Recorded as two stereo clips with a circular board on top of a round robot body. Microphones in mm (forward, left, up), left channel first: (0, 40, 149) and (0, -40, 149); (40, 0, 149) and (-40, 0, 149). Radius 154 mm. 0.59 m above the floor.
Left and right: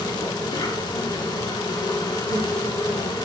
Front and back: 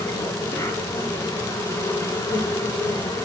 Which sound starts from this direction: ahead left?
An insect, at 0.0 s.